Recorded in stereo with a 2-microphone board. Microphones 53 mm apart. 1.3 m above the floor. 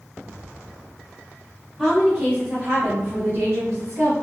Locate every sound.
1.8 s a woman speaking: centre (ahead or behind), 1.1 m; by 4.1 s 80° right, 0.8 m